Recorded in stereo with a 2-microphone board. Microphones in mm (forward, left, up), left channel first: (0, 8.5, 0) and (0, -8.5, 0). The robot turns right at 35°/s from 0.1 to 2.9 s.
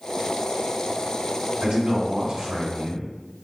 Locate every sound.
1.6 s a man speaking: 100° right, 2.0 m; by 3.1 s 50° right, 2.0 m